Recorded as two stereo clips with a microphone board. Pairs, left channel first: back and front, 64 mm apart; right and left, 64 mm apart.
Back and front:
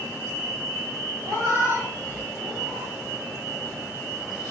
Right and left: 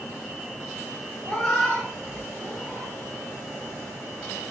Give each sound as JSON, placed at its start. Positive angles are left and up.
{"t": 1.2, "sound": "a cat meowing", "azimuth_deg": 5, "distance_m": 2.5}